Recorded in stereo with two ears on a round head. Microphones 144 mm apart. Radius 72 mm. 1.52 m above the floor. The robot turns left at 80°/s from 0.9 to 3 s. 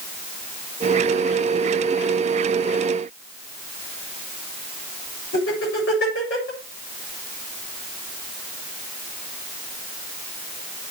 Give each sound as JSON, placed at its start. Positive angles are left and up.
{"t": 5.3, "sound": "laughter", "side_deg": 75, "distance_m": 6.5}